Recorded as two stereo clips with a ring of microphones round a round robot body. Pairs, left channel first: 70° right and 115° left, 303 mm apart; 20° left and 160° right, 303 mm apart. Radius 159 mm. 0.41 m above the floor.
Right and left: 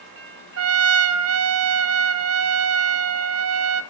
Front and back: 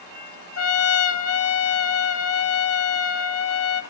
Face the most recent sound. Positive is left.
turn(degrees=70)